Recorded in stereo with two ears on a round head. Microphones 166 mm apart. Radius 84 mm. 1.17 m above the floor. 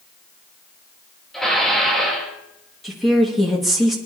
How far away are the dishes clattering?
About 2.5 m.